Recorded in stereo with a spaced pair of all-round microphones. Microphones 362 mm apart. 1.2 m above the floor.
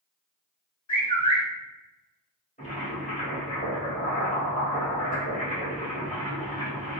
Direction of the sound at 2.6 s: 25° left (ahead or behind).